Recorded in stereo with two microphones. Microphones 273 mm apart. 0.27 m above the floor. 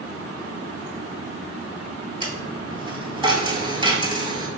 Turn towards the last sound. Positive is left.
turn(degrees=-20)  # may be behind; listen again after turning